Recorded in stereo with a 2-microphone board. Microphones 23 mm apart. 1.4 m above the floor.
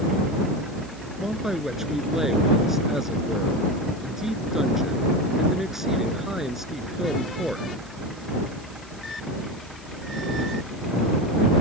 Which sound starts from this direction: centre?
A man speaking, at 1.2 s.